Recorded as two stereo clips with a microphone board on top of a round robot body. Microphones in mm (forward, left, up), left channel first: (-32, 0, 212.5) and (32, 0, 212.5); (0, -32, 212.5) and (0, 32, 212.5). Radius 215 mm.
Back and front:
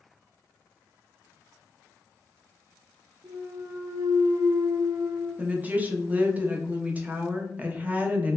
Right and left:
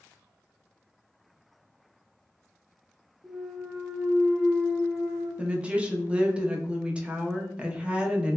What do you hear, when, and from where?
3.2 s a clunk: 15° left, 0.8 m
5.4 s a woman speaking: 35° left, 0.8 m